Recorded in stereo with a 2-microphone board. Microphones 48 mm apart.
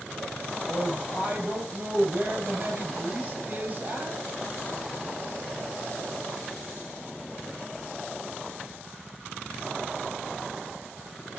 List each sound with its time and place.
0.7 s a woman speaking: 35° right (ahead or behind), 7.5 m